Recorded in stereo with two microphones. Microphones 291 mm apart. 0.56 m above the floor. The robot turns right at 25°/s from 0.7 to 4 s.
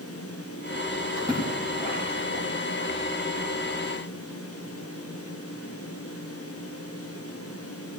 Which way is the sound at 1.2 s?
10° right (ahead or behind).